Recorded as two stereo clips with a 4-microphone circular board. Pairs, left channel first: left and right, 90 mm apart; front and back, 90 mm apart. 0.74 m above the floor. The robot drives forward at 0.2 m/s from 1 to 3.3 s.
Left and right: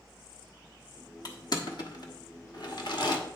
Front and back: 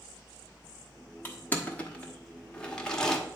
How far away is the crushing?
About 1.3 m.